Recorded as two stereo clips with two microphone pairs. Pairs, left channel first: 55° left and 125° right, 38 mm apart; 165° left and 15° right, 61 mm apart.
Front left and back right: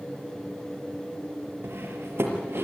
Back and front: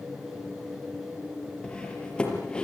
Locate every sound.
1.6 s cutlery clinking: 115° right, 5 m